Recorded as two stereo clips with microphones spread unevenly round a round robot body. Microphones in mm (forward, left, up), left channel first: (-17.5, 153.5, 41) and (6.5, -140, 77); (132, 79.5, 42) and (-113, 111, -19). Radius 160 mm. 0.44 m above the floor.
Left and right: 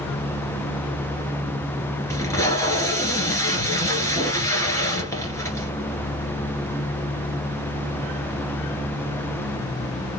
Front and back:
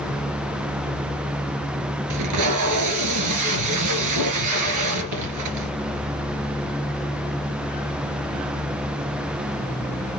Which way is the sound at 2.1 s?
175° left.